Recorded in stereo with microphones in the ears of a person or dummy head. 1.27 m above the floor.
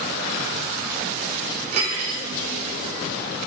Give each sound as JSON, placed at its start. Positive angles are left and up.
{"t": 1.7, "sound": "cutlery clinking", "side_deg": -40, "distance_m": 3.0}